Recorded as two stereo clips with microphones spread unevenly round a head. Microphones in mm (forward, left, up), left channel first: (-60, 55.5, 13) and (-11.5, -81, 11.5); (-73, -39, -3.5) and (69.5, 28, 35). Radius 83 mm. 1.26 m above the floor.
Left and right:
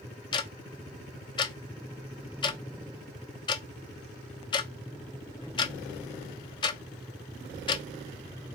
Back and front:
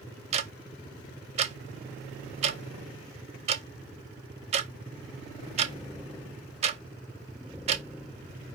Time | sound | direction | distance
0.3 | ticking | 70° left | 0.5 m